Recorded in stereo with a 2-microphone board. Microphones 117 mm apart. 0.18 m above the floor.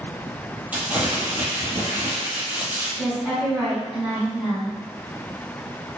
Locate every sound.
0.7 s crumpling: 15° right (ahead or behind), 0.7 m
3.0 s a woman speaking: 10° right (ahead or behind), 1.6 m